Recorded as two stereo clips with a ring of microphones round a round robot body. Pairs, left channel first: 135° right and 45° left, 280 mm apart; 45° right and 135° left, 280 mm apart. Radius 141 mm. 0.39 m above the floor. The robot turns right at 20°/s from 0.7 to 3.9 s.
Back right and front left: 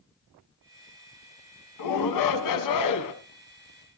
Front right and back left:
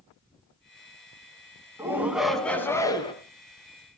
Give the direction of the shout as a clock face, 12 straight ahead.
5 o'clock.